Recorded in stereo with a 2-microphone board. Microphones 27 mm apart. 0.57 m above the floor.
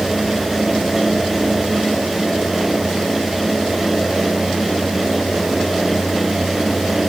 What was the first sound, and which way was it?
Only background noise.